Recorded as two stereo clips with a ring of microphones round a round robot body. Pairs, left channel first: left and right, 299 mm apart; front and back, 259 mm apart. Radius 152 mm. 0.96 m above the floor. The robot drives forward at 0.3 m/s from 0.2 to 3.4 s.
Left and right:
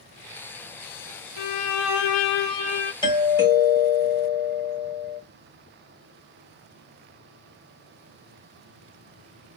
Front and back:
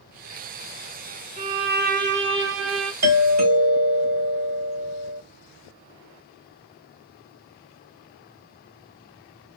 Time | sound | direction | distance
1.4 | a violin | 115° left | 0.8 m
3.0 | a doorbell | 165° left | 2.5 m